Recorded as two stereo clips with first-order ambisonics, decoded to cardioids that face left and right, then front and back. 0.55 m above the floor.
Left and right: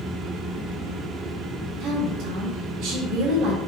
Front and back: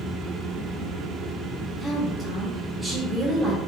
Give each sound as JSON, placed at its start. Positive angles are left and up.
{"t": 1.8, "sound": "a woman speaking", "azimuth_deg": -105, "distance_m": 1.3}